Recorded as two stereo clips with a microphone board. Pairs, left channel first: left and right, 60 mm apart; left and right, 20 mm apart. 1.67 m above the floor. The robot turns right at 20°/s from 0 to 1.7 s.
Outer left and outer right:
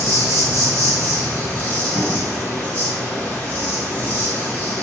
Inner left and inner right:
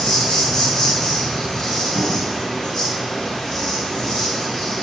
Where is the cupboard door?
45° right (ahead or behind), 1.1 m.